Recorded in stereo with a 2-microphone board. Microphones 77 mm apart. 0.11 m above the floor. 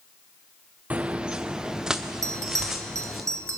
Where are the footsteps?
20° right (ahead or behind), 0.5 m; by 3.2 s 5° right (ahead or behind), 2 m.